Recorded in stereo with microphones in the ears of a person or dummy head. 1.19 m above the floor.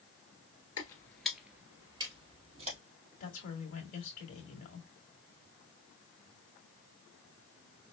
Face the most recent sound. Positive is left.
turn(degrees=35)  # may be behind; listen again after turning